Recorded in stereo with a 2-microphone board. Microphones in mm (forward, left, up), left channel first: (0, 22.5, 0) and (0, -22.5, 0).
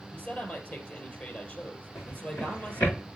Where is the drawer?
75° left (ahead or behind), 6 m.